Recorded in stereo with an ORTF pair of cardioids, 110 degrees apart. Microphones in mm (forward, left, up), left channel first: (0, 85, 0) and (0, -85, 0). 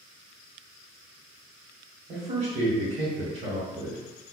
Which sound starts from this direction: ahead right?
A man speaking, at 2.1 s.